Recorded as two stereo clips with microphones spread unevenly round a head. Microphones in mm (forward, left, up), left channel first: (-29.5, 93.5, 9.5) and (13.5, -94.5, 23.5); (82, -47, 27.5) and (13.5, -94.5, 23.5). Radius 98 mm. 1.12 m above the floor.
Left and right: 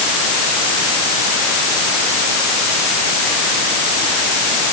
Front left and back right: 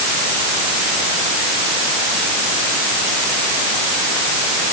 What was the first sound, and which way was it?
Only background noise.